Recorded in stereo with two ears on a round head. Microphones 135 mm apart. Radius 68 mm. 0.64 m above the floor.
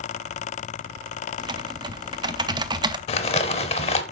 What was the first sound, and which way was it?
Typing on a keyboard, 30° right (ahead or behind).